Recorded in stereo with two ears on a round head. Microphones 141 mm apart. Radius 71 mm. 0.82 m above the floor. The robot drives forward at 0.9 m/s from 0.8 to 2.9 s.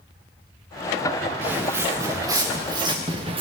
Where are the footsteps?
15° right (ahead or behind), 5 m; by 3.4 s 40° right (ahead or behind), 4 m.